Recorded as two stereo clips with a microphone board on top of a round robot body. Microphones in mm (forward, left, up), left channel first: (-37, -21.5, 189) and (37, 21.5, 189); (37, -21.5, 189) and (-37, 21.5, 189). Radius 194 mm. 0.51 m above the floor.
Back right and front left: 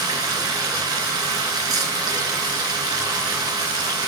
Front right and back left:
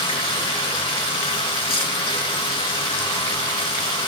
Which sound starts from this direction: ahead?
Running water, at 0.0 s.